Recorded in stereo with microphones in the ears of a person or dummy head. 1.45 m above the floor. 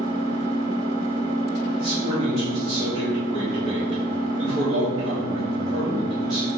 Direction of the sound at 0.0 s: 75° right (ahead or behind).